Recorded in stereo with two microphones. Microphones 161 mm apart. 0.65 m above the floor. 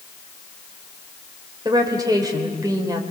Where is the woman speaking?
25° right (ahead or behind), 2.5 m.